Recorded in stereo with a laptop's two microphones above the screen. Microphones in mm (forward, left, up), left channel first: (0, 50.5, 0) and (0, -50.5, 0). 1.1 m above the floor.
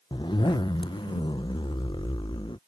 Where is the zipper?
50° left (ahead or behind).